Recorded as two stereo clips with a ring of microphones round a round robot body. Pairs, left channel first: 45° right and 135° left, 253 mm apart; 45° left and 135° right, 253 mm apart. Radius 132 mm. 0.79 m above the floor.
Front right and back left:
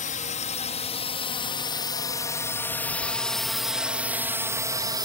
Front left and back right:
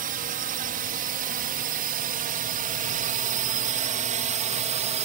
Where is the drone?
90° right; by 5.0 s 165° right.